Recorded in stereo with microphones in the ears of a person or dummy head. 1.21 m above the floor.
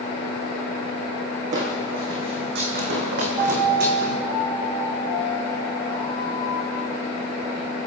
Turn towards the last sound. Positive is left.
turn(degrees=-30)  # may be behind; listen again after turning